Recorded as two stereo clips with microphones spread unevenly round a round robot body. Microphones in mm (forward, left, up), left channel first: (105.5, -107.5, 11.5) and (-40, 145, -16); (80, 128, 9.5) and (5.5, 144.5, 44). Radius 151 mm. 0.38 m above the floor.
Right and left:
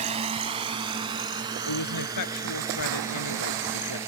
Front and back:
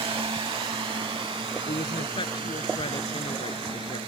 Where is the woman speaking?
45° right.